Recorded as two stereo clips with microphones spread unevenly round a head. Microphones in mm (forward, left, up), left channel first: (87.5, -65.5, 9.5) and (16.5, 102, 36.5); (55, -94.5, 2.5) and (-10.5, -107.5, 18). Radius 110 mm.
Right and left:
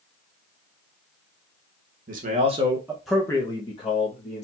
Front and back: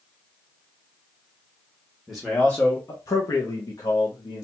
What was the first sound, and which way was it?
A man speaking, 115° left.